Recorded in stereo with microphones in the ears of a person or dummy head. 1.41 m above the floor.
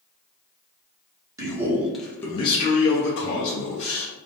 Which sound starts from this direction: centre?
A man speaking, at 1.4 s.